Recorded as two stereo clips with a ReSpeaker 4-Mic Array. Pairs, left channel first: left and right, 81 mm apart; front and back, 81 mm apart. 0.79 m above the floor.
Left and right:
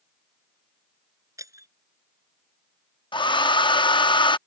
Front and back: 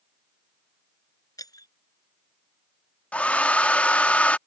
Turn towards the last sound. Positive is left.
turn(degrees=75)